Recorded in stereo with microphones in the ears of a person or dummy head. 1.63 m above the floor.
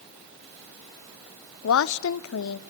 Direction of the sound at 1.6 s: 80° left.